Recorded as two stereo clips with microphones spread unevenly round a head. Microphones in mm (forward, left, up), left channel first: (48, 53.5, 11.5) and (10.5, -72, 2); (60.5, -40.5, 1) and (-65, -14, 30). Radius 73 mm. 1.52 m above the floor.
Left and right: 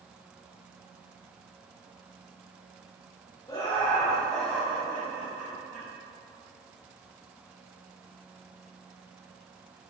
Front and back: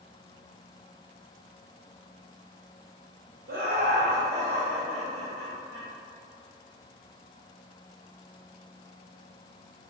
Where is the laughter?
145° left, 0.8 m; by 5.9 s 175° left, 1.8 m.